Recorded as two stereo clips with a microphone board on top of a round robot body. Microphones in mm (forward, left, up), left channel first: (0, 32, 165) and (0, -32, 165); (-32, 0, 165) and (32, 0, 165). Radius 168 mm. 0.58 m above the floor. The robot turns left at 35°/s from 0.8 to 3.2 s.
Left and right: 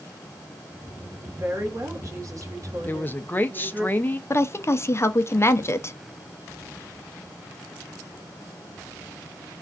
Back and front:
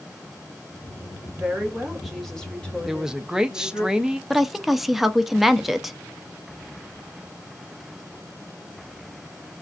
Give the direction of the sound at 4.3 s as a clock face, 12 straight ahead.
9 o'clock.